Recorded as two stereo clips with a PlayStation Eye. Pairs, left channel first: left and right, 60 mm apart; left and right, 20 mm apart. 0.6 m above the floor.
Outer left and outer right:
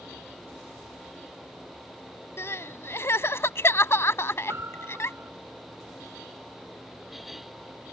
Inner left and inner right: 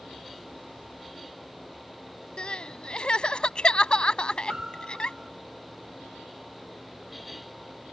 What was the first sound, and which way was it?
Crying, 45° left (ahead or behind).